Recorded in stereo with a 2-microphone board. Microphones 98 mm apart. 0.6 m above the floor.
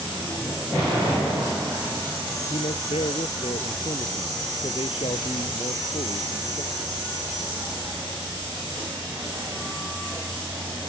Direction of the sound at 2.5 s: 75° left (ahead or behind).